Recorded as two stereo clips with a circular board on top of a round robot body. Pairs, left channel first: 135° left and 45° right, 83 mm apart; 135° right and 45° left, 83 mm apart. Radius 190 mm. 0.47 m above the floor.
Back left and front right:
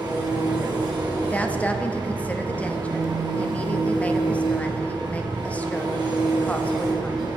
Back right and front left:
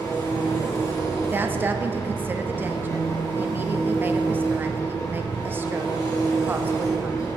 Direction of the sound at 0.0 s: 85° right.